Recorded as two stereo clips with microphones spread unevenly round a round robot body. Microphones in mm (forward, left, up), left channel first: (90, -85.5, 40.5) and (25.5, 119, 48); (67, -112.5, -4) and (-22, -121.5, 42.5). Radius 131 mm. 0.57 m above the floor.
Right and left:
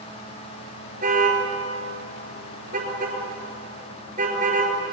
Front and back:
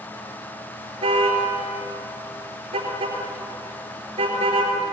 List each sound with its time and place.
1.0 s a car horn: 170° left, 4.5 m